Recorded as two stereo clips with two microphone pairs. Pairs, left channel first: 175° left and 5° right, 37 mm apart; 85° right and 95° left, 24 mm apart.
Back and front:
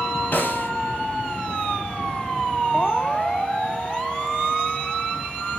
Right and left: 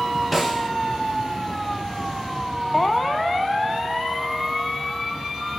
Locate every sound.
0.3 s a snare drum: 175° right, 2.5 m